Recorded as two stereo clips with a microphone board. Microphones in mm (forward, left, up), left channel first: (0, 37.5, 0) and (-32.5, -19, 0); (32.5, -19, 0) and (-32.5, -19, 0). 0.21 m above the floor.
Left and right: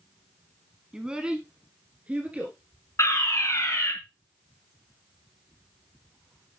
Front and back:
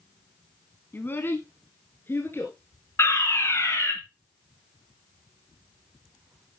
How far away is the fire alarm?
About 3.5 m.